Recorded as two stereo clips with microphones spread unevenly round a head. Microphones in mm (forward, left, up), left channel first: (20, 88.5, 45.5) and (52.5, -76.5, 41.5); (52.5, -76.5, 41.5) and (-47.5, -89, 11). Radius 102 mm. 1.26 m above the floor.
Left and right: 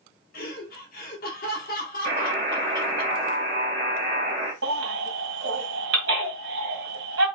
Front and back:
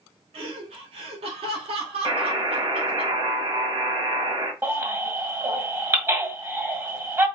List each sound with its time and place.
0.3 s laughter: 145° left, 1.5 m
2.0 s a buzzer: 125° right, 1.5 m
4.6 s a baby crying: 100° right, 1.9 m